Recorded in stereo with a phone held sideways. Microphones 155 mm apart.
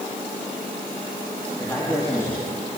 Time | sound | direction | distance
1.6 | a man speaking | 20° left (ahead or behind) | 3.5 m